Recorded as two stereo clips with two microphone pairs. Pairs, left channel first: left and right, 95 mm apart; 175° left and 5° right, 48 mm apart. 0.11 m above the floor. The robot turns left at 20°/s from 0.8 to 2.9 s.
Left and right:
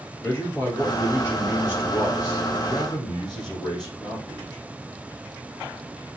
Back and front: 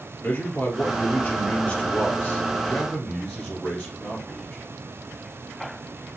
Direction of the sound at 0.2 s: 150° left.